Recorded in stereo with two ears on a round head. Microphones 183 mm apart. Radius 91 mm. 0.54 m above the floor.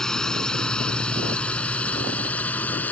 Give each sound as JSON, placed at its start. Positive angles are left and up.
{"t": 0.0, "sound": "a drone", "side_deg": 5}